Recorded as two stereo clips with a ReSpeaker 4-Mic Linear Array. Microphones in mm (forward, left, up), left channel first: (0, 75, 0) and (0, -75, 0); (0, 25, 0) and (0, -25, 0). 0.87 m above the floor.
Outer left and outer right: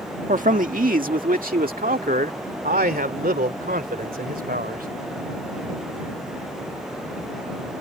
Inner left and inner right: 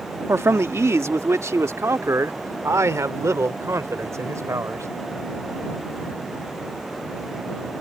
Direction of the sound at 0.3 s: 60° right (ahead or behind).